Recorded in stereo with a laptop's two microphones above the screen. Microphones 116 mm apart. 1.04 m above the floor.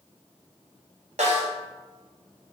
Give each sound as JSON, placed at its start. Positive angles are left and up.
{"t": 1.2, "sound": "a snare drum", "side_deg": -75, "distance_m": 0.6}